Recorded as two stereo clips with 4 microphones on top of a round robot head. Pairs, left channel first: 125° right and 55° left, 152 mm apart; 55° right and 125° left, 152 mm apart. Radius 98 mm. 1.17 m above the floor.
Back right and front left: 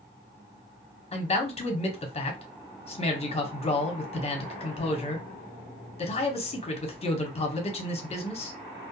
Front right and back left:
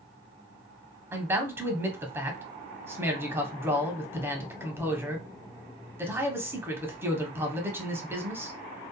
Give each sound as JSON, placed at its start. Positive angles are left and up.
{"t": 1.1, "sound": "a man speaking", "azimuth_deg": -160, "distance_m": 0.8}